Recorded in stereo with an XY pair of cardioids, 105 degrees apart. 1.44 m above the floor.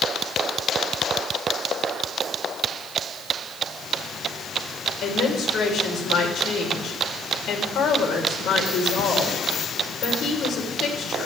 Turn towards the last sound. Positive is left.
turn(degrees=65)